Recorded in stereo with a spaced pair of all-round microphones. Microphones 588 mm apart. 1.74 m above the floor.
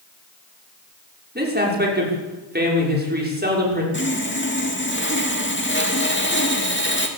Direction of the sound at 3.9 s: 20° left (ahead or behind).